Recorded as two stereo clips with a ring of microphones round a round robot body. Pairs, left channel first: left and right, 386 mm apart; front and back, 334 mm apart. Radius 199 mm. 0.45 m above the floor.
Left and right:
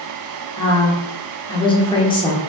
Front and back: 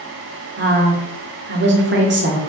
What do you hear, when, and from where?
0.6 s a woman speaking: 160° left, 1.2 m